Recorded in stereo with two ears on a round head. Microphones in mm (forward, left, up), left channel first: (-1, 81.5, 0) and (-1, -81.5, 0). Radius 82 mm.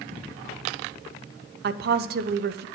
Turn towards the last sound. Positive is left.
turn(degrees=-55)  # may be behind; listen again after turning